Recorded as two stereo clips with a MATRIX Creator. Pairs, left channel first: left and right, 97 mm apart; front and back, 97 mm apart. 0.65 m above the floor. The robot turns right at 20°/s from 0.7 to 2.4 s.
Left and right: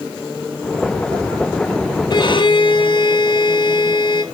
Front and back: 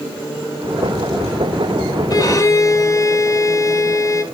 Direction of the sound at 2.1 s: 50° left.